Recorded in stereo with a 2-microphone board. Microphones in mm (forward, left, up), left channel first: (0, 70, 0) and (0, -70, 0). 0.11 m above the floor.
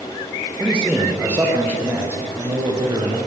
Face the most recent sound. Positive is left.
turn(degrees=-30)  # may be behind; listen again after turning